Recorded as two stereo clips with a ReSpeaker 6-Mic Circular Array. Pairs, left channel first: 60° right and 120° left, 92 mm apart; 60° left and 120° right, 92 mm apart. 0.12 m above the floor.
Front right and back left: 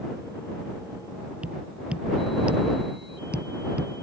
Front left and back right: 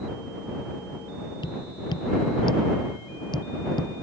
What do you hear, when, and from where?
1.4 s tapping: 45° left